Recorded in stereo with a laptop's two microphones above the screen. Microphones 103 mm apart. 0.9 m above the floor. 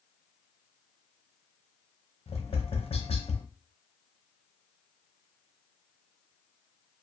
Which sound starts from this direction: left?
Tapping, at 2.3 s.